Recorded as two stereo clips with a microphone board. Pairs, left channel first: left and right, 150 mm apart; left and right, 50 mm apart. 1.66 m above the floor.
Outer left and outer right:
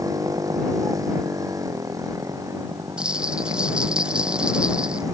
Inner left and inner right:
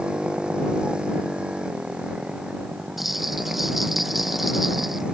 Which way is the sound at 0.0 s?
20° right (ahead or behind).